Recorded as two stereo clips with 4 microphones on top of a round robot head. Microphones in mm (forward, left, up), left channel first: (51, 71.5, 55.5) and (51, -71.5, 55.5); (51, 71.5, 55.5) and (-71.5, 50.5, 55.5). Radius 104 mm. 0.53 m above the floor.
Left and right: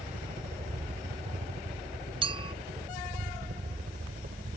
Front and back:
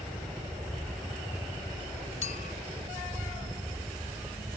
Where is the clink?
35° right.